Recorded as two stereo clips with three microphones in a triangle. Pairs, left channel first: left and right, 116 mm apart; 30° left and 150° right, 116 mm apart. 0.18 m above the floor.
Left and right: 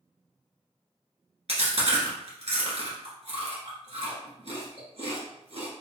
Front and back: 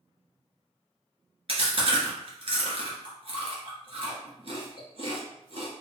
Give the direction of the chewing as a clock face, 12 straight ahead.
4 o'clock.